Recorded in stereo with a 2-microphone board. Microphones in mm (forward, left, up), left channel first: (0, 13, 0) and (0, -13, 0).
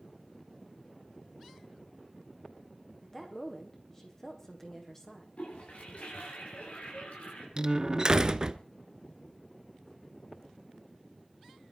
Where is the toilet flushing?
75° left (ahead or behind), 7.5 m.